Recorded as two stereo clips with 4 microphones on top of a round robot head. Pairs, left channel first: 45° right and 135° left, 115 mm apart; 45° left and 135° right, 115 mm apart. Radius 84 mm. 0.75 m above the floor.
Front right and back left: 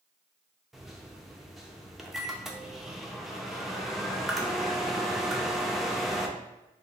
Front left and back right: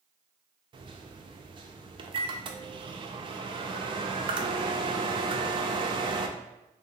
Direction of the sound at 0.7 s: 140° right.